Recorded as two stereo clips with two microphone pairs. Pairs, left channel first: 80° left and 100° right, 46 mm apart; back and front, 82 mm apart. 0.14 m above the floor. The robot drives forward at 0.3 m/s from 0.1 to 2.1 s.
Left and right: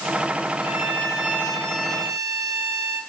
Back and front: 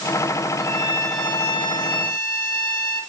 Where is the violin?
170° left, 5.5 m.